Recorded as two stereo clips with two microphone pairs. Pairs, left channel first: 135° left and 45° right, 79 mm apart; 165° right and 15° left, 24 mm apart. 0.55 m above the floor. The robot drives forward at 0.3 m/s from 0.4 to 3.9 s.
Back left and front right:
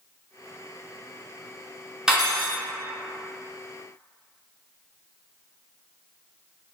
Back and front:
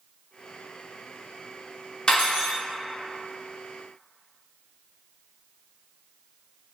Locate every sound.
2.1 s cutlery clinking: 125° right, 0.7 m; by 2.6 s 135° right, 0.8 m